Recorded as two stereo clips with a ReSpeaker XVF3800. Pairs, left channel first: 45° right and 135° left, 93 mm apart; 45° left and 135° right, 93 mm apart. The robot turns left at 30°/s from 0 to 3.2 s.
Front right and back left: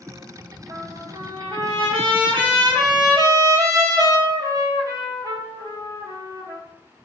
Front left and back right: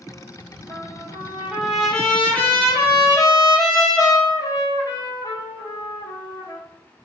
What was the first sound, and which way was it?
A trumpet, 165° left.